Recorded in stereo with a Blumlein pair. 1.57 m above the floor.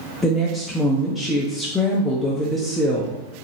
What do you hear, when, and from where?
0.2 s a woman speaking: 10° left, 0.5 m